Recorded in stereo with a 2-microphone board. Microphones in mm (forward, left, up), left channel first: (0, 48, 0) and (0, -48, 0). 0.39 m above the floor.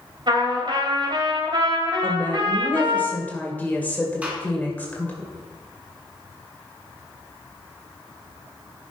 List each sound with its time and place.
0.3 s a trumpet: 55° right (ahead or behind), 2 m
2.0 s a woman speaking: 15° left (ahead or behind), 1.7 m
4.2 s a gunshot: 15° right (ahead or behind), 2 m